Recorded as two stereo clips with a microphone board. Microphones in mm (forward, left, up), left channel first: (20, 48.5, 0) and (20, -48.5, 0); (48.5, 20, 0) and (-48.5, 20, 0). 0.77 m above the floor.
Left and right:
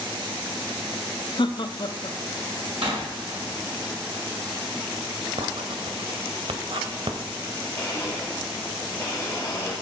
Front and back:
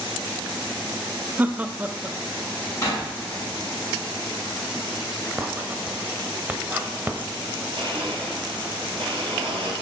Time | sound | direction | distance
1.4 | laughter | 110° left | 0.9 m
2.8 | a door slam | 60° right | 6 m
5.4 | writing | 110° right | 1.3 m
7.8 | a blender | 155° left | 4.5 m